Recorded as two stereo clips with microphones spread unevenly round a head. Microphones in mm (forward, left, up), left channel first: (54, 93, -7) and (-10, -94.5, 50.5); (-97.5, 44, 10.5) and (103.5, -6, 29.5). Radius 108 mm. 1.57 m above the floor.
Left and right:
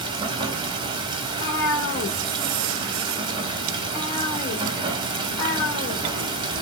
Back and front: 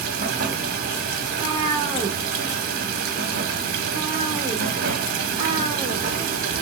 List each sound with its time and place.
0.0 s running water: 55° right, 0.7 m
1.2 s a cat meowing: 45° left, 1.3 m